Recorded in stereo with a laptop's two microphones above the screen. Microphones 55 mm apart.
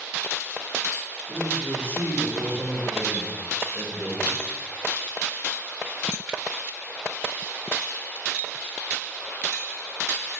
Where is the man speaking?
45° right (ahead or behind), 1.0 m.